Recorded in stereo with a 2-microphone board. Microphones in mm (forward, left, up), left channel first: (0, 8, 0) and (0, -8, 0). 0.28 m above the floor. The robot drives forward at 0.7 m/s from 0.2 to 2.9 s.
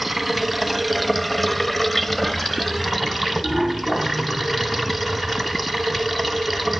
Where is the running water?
5° left (ahead or behind), 1.1 m.